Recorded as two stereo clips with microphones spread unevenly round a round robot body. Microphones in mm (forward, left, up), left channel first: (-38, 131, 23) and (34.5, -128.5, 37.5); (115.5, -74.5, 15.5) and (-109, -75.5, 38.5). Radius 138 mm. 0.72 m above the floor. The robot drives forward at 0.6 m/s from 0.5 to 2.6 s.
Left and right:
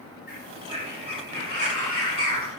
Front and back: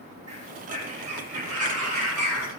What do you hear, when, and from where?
0.3 s a bird: 160° left, 7.5 m